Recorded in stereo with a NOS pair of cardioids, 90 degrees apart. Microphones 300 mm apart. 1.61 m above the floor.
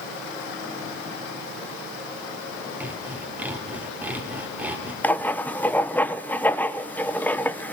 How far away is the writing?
About 1.0 m.